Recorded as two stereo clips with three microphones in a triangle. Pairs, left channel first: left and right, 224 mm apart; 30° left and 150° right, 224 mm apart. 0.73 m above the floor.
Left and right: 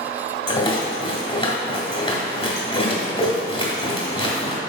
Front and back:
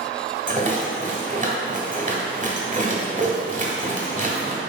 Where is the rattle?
155° left, 1.8 m.